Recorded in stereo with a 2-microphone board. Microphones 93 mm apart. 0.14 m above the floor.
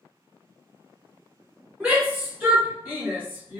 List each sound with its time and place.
1.8 s a shout: 15° right (ahead or behind), 1.9 m